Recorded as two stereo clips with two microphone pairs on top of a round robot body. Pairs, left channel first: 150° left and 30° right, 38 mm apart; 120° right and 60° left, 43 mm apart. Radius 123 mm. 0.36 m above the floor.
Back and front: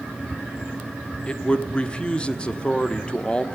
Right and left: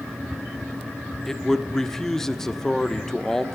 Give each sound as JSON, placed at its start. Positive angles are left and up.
{"t": 1.3, "sound": "a man speaking", "azimuth_deg": -170, "distance_m": 1.4}